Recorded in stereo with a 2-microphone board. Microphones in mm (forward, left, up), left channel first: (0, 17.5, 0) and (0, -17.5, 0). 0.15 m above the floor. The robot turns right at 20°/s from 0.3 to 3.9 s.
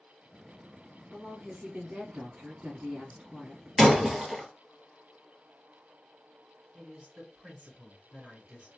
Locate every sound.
1.1 s a woman speaking: 145° right, 1.2 m; by 3.7 s 95° right, 1.2 m
3.8 s breaking glass: 5° right (ahead or behind), 1.7 m
6.7 s a woman speaking: 35° right (ahead or behind), 2 m